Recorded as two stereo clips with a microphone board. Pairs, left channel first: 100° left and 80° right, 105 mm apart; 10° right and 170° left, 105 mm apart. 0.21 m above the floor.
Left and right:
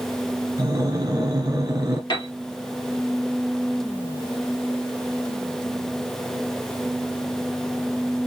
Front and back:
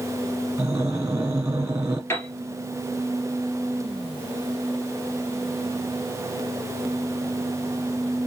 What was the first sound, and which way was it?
Breathing, 125° right.